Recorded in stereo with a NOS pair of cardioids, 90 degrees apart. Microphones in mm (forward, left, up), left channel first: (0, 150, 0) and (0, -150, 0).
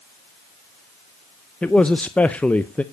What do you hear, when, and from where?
1.6 s a man speaking: 5° left, 0.5 m